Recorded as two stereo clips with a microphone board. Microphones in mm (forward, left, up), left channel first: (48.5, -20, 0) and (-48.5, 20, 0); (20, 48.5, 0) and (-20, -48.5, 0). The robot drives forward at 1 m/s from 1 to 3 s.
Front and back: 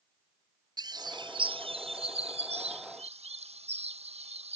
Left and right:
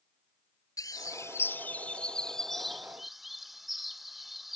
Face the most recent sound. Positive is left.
turn(degrees=160)